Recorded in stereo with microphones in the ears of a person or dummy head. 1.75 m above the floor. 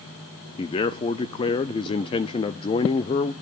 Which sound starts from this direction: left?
A man speaking, at 0.6 s.